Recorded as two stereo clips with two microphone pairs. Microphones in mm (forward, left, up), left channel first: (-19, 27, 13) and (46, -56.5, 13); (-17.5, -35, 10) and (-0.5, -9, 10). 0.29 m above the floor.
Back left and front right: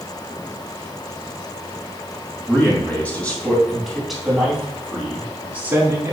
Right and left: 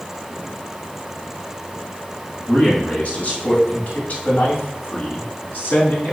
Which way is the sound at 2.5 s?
170° right.